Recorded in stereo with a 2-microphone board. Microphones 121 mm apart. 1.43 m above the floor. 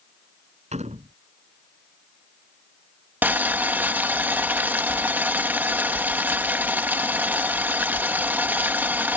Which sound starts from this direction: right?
A door slam, at 0.7 s.